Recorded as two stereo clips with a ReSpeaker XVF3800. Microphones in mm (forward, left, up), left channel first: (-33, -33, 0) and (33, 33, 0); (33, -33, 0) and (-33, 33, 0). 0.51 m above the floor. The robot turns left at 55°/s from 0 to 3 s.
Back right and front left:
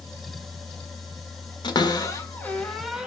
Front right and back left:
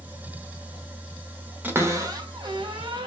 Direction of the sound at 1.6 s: 160° right.